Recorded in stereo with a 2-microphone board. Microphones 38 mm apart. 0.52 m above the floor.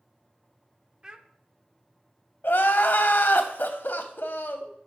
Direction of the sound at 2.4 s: 65° left (ahead or behind).